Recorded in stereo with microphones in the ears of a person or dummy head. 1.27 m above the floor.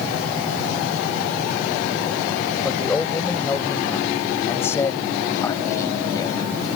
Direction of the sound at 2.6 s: Centre (ahead or behind).